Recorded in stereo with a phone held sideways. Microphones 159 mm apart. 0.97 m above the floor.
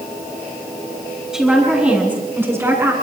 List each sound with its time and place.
1.3 s a woman speaking: 5° right (ahead or behind), 8 m; by 2.9 s 20° right (ahead or behind), 8.5 m